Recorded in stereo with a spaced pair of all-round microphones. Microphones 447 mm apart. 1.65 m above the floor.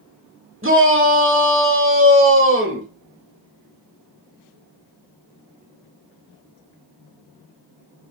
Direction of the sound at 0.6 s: 25° right (ahead or behind).